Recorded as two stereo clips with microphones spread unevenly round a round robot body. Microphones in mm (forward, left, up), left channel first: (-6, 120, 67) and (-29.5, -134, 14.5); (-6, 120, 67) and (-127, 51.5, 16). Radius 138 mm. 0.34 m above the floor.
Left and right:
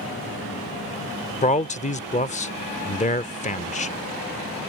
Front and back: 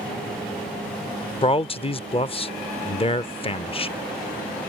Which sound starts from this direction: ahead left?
A man speaking, at 1.4 s.